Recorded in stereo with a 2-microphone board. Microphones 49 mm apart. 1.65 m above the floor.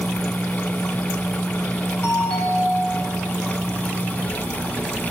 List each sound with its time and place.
2.0 s a doorbell: 20° left (ahead or behind), 8 m